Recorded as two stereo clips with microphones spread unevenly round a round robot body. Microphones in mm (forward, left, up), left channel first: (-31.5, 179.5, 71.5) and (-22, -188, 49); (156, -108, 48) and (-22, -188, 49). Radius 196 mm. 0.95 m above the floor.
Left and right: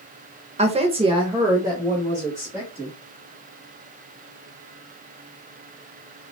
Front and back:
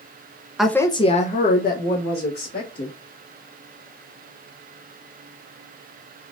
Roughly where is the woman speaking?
Right.